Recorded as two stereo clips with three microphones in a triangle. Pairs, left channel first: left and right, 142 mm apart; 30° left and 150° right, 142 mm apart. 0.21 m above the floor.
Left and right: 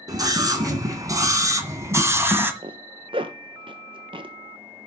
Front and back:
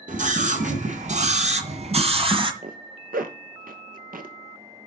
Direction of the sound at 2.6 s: 145° right.